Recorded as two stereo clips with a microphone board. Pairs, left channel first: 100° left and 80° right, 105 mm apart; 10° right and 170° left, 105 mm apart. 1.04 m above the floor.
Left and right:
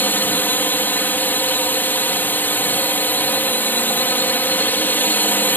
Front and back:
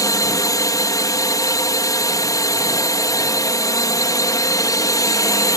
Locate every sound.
0.0 s a drone: 35° left